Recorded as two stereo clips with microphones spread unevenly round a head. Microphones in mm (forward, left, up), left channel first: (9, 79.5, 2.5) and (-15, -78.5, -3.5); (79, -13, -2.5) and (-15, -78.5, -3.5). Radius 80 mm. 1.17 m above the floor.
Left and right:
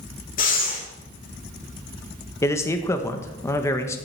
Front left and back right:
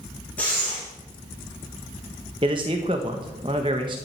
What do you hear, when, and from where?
0.4 s breathing: 115° left, 4.5 m
2.4 s a man speaking: 155° left, 1.3 m